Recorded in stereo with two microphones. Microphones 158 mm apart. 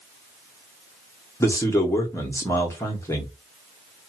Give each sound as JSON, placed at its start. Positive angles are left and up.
{"t": 1.4, "sound": "a man speaking", "side_deg": 20, "distance_m": 1.1}